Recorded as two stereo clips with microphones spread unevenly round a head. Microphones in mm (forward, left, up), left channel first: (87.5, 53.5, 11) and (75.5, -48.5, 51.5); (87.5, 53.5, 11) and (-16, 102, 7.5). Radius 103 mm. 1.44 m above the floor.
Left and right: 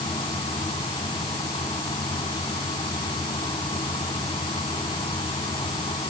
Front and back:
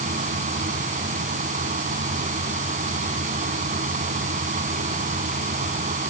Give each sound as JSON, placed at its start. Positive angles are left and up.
{"t": 0.0, "sound": "a fan", "azimuth_deg": 155}